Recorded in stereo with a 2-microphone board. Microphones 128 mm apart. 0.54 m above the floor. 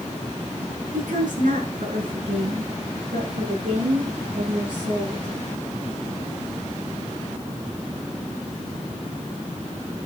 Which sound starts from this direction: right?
A woman speaking, at 0.9 s.